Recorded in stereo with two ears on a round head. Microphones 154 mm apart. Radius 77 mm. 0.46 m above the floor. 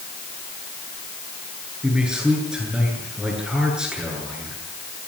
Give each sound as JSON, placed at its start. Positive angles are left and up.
{"t": 1.8, "sound": "a man speaking", "side_deg": -5, "distance_m": 8.5}